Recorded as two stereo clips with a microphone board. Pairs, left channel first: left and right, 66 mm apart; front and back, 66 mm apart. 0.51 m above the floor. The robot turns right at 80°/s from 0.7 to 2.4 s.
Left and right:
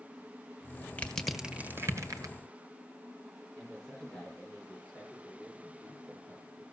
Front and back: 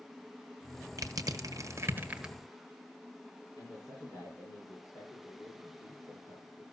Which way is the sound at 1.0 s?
155° left.